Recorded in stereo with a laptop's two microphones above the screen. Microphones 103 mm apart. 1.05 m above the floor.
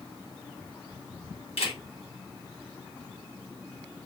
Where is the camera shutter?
75° left (ahead or behind), 1.5 m.